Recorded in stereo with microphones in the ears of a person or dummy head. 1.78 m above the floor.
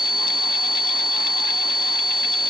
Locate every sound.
Only background noise.